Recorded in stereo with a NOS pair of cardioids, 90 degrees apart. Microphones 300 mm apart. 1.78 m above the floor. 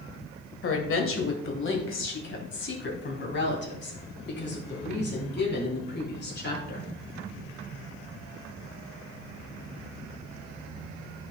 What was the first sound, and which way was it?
A woman speaking, 50° left.